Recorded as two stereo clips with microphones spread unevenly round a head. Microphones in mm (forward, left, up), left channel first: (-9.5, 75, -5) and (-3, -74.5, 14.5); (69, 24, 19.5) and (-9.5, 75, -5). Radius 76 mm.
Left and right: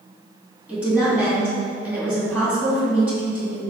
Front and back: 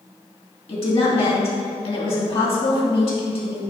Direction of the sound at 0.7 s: 5° right.